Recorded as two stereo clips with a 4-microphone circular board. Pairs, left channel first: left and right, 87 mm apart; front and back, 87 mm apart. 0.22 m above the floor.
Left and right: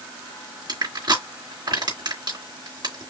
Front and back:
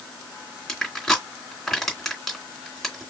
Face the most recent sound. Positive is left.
turn(degrees=-85)